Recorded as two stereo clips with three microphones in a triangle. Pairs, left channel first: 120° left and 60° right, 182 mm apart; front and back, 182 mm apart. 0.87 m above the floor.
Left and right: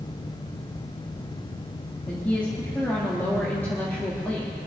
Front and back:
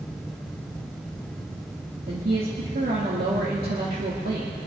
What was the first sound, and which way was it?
A woman speaking, 160° right.